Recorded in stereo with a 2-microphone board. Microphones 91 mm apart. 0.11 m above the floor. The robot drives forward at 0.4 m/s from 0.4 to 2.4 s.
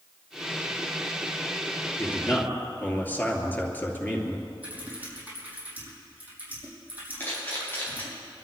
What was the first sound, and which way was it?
A man speaking, 20° left (ahead or behind).